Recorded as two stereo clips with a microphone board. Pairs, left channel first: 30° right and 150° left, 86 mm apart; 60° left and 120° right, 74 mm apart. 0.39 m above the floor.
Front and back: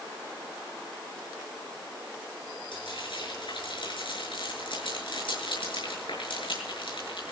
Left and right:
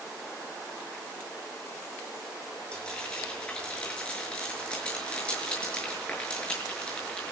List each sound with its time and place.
2.7 s frying: 15° right, 6.5 m